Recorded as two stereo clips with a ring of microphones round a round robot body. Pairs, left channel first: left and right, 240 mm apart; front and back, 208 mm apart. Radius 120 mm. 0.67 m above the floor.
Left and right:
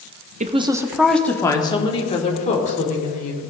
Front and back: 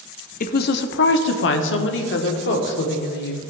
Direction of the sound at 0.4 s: 40° right.